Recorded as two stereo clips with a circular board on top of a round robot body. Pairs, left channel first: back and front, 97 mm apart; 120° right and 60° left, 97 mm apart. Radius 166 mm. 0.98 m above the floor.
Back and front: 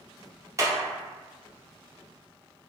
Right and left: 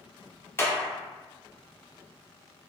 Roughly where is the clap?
Ahead right.